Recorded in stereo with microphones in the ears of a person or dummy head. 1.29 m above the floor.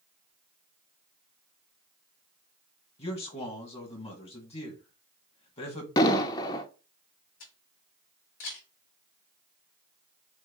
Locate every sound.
3.0 s a man speaking: 30° left (ahead or behind), 1.7 m
6.0 s an explosion: 20° left (ahead or behind), 0.7 m
7.4 s a camera shutter: 55° left (ahead or behind), 2.5 m